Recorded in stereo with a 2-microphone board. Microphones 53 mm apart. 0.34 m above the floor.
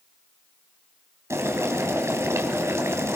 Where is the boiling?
60° right (ahead or behind), 3 m.